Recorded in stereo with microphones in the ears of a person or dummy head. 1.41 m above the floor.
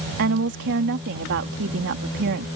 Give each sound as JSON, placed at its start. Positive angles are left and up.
{"t": 0.2, "sound": "a woman speaking", "side_deg": -60}